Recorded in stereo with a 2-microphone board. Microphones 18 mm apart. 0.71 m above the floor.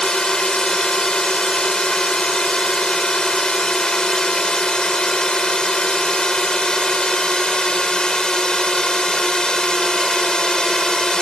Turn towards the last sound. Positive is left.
turn(degrees=45)  # may be behind; listen again after turning